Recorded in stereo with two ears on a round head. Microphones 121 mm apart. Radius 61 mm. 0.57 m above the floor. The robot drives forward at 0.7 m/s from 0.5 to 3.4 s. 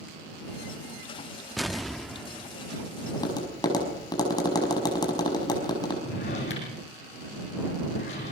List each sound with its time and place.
1.6 s an explosion: centre (ahead or behind), 0.7 m
3.1 s tapping: 30° left (ahead or behind), 5 m
6.0 s a drawer: 50° left (ahead or behind), 7 m